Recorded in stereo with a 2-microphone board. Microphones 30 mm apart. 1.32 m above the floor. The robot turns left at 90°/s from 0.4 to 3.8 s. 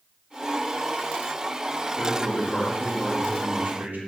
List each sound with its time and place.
2.0 s a man speaking: 75° left, 0.6 m; by 4.0 s 90° right, 0.6 m